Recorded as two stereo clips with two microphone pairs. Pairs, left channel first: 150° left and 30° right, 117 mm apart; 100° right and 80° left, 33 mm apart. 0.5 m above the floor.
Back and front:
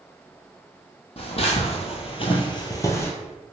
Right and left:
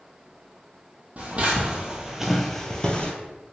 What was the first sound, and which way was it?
Footsteps, 120° left.